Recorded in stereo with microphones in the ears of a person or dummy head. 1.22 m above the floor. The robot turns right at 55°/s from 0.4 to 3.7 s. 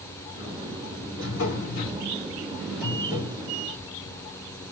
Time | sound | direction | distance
1.2 | a drawer | 90° left | 3.5 m